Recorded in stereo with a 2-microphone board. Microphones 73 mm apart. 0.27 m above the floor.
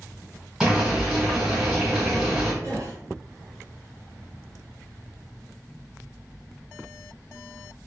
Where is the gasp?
50° right (ahead or behind), 1.6 m.